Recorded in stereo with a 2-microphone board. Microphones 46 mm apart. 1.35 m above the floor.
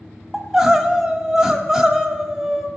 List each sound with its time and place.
0.3 s crying: 10° right (ahead or behind), 1.1 m